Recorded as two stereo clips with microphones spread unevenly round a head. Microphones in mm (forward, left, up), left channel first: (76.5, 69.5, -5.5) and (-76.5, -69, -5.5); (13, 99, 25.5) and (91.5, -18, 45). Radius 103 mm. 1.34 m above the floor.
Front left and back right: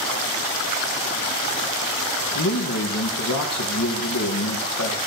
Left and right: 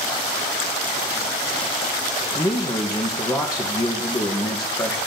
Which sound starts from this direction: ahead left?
A man speaking, at 2.4 s.